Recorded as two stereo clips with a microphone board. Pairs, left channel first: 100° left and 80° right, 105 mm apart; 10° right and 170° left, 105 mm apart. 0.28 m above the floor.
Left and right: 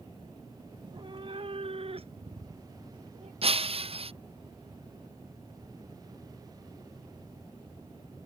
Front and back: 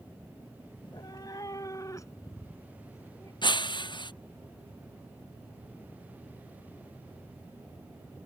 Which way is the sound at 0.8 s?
45° right.